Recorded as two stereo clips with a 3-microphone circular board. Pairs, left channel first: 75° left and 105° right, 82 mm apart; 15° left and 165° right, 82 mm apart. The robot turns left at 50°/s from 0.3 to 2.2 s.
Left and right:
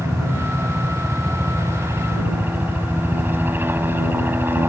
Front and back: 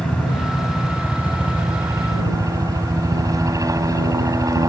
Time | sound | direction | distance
0.0 | a helicopter | 65° right | ?